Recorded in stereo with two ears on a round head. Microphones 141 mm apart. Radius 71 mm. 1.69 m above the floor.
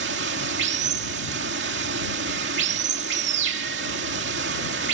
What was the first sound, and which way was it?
Running water, 80° right.